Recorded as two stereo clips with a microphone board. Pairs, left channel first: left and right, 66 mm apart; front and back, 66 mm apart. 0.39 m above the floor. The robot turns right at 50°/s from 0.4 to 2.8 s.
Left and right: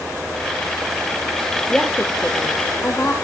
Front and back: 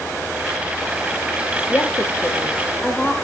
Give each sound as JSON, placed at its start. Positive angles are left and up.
{"t": 1.7, "sound": "a woman speaking", "azimuth_deg": 10, "distance_m": 1.6}